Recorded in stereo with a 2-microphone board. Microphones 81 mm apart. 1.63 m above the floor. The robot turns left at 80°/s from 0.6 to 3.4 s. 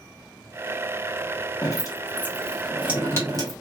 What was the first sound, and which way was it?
Dripping, 50° left (ahead or behind).